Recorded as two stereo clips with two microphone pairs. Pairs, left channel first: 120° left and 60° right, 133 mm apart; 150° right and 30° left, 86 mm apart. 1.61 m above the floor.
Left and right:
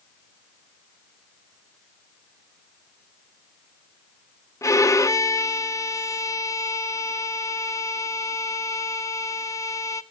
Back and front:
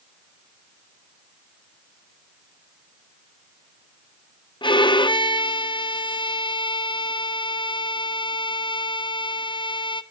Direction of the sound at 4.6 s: 175° right.